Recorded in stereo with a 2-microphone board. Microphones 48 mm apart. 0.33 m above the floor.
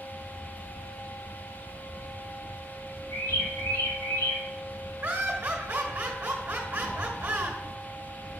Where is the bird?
80° left, 3.5 m.